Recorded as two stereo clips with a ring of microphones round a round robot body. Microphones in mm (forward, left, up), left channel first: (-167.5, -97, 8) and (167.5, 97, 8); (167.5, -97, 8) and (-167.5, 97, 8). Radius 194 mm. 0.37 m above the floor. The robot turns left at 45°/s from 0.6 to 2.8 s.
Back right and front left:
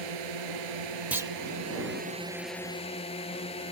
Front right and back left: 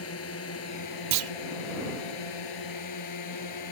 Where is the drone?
25° left; by 3.7 s 75° right.